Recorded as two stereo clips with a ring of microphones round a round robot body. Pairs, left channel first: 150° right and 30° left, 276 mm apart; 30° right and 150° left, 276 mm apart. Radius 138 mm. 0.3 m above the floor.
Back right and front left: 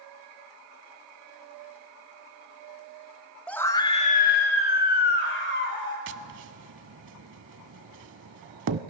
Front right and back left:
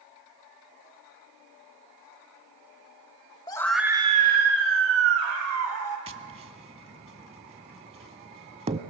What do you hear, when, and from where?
3.5 s a scream: 70° right, 0.9 m; by 6.0 s 165° left, 2 m
6.1 s tapping: 80° left, 0.6 m